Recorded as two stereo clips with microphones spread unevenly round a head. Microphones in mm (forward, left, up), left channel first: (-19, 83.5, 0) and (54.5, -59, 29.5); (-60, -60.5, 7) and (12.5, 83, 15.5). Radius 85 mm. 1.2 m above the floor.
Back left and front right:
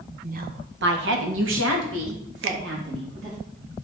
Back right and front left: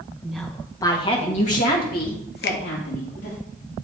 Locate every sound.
0.2 s a woman speaking: 20° right, 1.2 m; by 3.4 s 95° right, 3 m
2.4 s a finger snap: 80° right, 0.6 m